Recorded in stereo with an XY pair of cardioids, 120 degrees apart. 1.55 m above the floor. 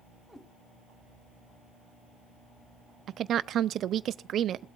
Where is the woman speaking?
55° right, 0.5 m.